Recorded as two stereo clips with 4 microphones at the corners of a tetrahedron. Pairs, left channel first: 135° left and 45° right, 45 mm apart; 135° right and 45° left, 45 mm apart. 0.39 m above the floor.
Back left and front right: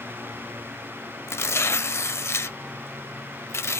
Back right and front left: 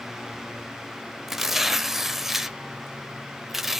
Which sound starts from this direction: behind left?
Tearing paper, at 1.3 s.